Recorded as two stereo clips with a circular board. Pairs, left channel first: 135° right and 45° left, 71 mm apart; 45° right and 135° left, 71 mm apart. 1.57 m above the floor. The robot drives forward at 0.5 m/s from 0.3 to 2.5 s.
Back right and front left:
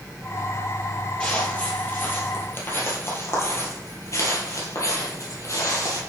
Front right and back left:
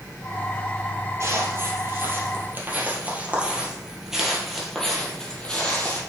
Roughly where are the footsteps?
Behind left.